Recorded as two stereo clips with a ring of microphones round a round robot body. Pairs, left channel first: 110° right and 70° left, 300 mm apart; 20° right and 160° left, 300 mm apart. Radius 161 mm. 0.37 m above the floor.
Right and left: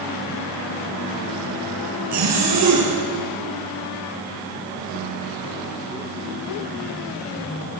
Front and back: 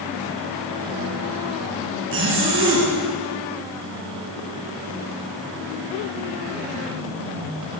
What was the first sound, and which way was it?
A zipper, 105° left.